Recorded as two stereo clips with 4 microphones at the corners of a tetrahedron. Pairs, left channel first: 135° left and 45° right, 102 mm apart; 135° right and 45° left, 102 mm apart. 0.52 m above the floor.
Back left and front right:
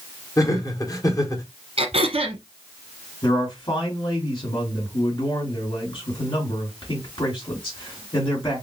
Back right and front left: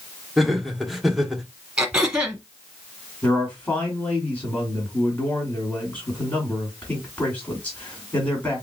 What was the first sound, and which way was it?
Laughter, 130° left.